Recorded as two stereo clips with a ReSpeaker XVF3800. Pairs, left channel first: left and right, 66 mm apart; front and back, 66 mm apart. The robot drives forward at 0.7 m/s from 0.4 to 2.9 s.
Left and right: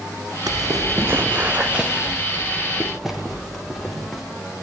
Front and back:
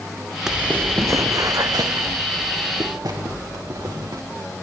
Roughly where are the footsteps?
Right.